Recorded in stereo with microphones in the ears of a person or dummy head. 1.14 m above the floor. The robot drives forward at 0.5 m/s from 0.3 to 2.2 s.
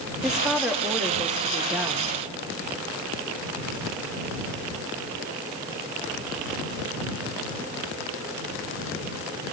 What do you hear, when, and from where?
0.2 s a woman speaking: centre (ahead or behind), 2 m